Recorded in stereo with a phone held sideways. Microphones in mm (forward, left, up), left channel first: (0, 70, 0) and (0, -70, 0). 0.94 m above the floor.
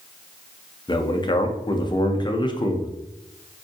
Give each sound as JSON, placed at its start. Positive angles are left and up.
{"t": 0.9, "sound": "a man speaking", "side_deg": 35, "distance_m": 0.5}